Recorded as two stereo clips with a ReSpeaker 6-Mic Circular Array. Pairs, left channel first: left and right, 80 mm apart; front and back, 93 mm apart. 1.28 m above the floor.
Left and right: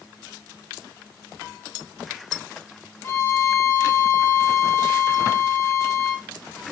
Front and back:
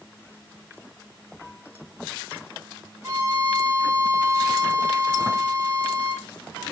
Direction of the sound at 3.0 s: 125° left.